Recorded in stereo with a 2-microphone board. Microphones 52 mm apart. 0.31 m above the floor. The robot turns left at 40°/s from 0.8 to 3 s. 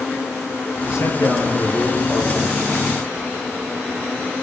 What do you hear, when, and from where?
0.8 s a man speaking: 105° left, 8 m; by 2.5 s 40° left, 8 m